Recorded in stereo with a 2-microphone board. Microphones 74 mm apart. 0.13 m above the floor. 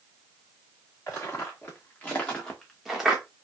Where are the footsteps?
35° left (ahead or behind), 2.0 m; by 3.2 s 10° right (ahead or behind), 1.1 m.